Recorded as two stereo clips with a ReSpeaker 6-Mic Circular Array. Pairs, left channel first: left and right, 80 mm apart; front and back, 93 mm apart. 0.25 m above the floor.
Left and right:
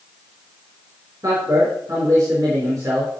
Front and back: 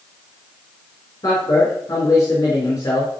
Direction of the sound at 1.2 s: 50° right.